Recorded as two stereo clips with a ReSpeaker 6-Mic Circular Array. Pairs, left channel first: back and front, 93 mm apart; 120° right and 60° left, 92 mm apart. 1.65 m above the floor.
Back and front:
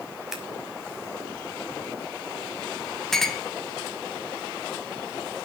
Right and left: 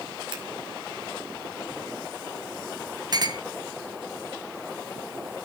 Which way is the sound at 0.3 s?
85° left.